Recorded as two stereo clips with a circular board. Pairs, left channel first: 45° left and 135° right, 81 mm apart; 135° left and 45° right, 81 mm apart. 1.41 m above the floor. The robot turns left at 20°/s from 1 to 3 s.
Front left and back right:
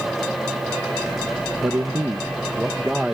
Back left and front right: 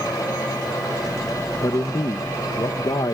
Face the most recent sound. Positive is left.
turn(degrees=145)